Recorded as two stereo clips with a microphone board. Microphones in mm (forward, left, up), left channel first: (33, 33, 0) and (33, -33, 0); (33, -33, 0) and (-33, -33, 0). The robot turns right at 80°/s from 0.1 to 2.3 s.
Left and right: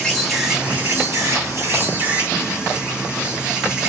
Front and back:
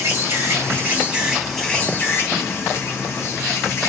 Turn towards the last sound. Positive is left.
turn(degrees=-20)